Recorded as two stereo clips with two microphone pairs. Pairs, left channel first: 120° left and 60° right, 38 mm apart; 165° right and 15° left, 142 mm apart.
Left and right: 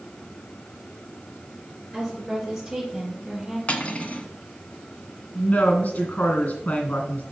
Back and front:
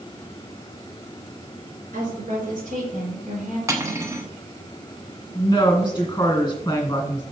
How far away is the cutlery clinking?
About 1.1 m.